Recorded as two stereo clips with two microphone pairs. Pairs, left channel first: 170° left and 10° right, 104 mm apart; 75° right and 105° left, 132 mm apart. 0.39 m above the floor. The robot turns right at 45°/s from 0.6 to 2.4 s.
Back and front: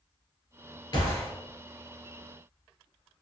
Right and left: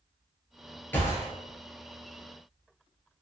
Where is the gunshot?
145° right, 1.2 m; by 1.3 s 130° right, 1.2 m.